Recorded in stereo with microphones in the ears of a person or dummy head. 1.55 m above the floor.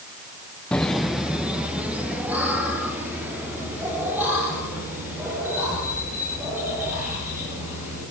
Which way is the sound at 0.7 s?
5° left (ahead or behind).